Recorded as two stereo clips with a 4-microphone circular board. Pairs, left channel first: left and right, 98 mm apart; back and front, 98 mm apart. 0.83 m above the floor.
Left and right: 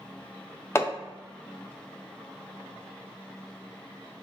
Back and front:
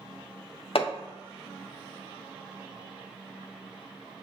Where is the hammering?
155° left, 0.6 m.